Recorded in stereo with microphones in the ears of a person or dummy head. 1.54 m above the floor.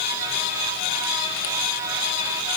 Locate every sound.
Only background noise.